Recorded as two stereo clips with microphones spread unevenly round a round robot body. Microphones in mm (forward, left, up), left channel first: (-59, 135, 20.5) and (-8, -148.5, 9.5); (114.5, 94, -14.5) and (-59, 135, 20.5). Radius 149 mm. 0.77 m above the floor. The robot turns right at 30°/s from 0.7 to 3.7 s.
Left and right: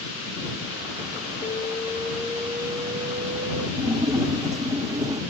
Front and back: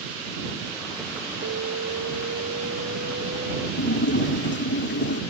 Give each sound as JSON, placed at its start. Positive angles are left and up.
{"t": 1.4, "sound": "an alarm", "azimuth_deg": 165}
{"t": 3.8, "sound": "a splash", "azimuth_deg": 0}